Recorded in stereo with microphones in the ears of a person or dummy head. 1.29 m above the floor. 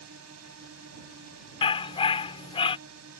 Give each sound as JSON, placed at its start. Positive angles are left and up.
{"t": 0.0, "sound": "a drone", "side_deg": -65}
{"t": 1.6, "sound": "a dog barking", "side_deg": 25}